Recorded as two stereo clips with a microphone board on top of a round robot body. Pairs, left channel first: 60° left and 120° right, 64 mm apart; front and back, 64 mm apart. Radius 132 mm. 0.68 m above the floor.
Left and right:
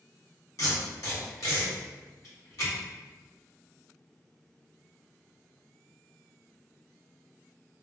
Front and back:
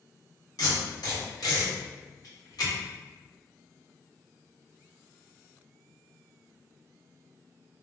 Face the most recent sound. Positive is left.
turn(degrees=20)